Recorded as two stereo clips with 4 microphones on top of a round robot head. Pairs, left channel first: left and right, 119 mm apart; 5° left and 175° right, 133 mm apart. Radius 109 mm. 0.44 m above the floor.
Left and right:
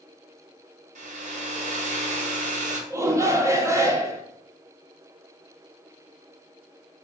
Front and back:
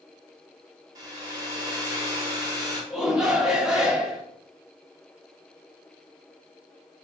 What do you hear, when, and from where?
0.9 s a hair dryer: 105° right, 0.8 m
2.9 s a shout: 95° right, 0.7 m